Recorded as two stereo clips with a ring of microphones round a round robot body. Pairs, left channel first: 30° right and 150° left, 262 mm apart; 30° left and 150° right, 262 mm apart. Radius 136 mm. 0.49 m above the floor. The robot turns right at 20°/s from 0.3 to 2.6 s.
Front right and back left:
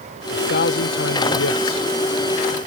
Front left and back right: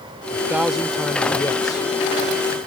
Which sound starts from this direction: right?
A man speaking, at 0.3 s.